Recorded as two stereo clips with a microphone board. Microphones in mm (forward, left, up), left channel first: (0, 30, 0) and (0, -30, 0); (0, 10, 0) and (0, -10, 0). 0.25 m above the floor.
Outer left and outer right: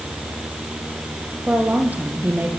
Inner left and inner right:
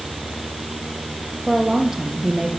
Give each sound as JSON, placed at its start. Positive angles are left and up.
{"t": 1.5, "sound": "a woman speaking", "side_deg": -20, "distance_m": 7.5}